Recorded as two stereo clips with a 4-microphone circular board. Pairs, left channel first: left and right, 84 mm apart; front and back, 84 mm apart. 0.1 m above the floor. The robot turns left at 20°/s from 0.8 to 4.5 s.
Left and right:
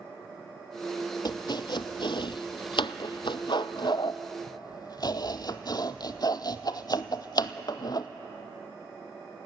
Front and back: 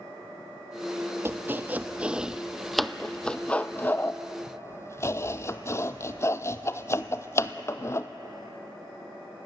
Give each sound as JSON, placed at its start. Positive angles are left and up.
{"t": 1.2, "sound": "chopping", "azimuth_deg": 120, "distance_m": 0.6}